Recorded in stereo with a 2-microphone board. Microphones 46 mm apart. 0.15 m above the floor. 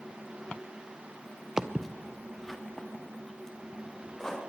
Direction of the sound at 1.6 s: 15° right (ahead or behind).